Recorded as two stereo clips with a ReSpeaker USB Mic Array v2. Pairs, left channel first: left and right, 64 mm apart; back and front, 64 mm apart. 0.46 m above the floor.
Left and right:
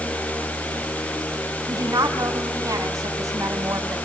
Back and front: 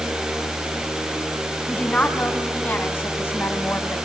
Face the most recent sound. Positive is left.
turn(degrees=-130)